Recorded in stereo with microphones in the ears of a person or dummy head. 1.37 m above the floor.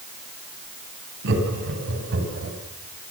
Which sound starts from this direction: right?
Laughter, at 1.2 s.